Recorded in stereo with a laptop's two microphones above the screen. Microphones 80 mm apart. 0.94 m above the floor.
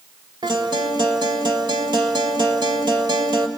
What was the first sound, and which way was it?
A guitar, 75° right (ahead or behind).